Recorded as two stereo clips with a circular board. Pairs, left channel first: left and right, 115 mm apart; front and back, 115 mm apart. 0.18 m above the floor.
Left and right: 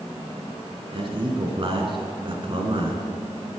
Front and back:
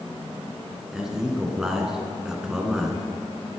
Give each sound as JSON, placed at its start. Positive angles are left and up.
{"t": 0.9, "sound": "a man speaking", "azimuth_deg": -95, "distance_m": 1.6}